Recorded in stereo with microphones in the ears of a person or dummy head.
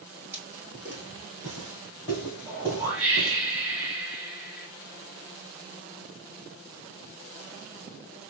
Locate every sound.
0.3 s footsteps: 15° right (ahead or behind), 1.5 m; by 3.4 s 10° right (ahead or behind), 3.5 m
2.5 s a whoosh: 10° right (ahead or behind), 2.5 m